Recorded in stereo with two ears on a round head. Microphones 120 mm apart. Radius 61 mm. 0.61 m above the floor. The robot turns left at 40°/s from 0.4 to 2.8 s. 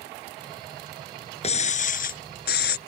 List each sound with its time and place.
1.4 s breaking glass: 130° left; by 2.8 s 75° left